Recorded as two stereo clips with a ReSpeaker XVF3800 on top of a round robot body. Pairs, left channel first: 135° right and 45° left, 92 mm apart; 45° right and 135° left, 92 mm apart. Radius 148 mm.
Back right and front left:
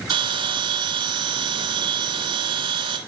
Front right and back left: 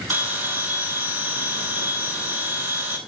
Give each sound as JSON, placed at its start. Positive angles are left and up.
{"t": 0.1, "sound": "a bell", "azimuth_deg": 65, "distance_m": 3.0}